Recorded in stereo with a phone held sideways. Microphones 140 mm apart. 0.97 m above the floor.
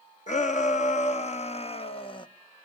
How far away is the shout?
About 1.7 m.